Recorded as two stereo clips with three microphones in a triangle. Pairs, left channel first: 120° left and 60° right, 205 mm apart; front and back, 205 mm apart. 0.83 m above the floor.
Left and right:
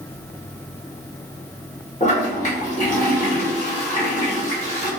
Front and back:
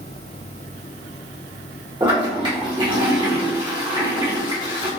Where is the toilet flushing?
130° left, 1.1 m.